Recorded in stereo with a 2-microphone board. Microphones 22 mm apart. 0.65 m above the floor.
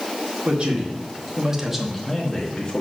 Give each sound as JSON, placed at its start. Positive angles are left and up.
{"t": 0.5, "sound": "a man speaking", "side_deg": -55, "distance_m": 1.9}